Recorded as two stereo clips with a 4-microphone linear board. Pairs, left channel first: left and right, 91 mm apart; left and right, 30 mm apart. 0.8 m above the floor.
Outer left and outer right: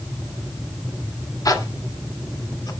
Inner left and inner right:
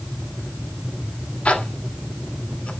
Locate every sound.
1.4 s a zipper: 45° left (ahead or behind), 1.6 m